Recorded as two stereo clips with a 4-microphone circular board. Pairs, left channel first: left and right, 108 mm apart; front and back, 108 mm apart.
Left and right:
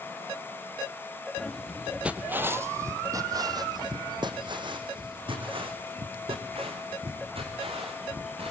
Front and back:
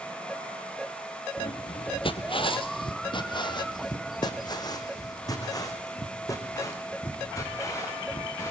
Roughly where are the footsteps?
Ahead.